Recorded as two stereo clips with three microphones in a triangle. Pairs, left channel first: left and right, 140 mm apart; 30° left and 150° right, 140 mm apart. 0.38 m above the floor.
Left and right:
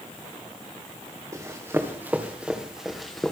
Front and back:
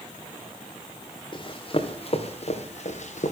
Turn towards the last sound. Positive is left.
turn(degrees=5)